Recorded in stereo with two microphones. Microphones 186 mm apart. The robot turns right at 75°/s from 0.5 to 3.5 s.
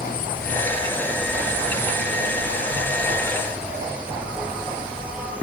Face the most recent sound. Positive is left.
turn(degrees=-10)